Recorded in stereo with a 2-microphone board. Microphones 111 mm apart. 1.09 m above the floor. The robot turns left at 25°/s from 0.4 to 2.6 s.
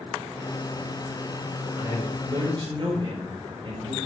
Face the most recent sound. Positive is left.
turn(degrees=-45)  # may be behind; listen again after turning